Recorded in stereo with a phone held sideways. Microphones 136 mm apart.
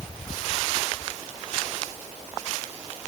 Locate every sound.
Only background noise.